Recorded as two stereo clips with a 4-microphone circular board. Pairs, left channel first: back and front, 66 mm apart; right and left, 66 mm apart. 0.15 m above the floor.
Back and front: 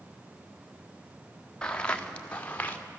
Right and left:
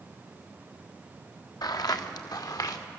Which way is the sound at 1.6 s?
100° right.